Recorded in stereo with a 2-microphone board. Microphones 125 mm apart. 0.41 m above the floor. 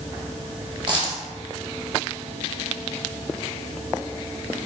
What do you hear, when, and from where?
0.9 s a dropped coin: 35° right (ahead or behind), 1.2 m